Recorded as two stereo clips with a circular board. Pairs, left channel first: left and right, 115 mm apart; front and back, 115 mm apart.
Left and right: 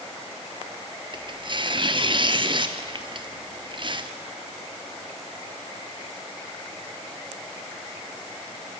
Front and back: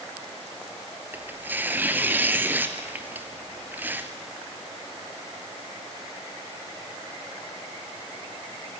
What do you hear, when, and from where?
1.1 s tearing paper: 110° right, 1.3 m